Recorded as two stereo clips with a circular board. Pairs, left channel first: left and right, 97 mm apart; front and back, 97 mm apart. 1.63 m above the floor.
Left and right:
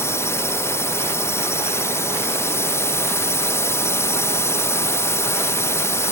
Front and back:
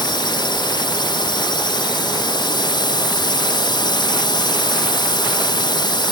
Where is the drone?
30° left.